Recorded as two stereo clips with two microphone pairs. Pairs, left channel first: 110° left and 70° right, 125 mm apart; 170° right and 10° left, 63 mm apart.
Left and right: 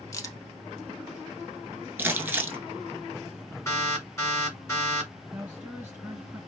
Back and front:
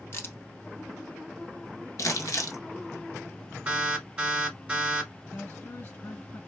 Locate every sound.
0.1 s a crack: 160° left, 0.6 m
2.0 s crumpling: 140° right, 0.6 m
3.7 s an alarm: 65° left, 1.2 m
5.3 s a woman speaking: 145° right, 1.9 m